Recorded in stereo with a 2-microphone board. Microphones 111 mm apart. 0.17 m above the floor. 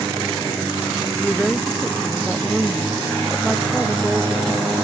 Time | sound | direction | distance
1.2 | a woman speaking | 5° left (ahead or behind) | ?